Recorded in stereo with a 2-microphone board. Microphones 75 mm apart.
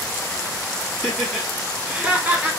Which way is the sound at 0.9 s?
Centre (ahead or behind).